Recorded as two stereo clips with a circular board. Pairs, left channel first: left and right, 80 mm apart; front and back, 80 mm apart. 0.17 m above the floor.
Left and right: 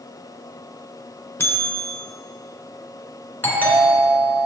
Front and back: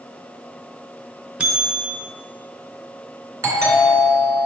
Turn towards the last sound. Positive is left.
turn(degrees=145)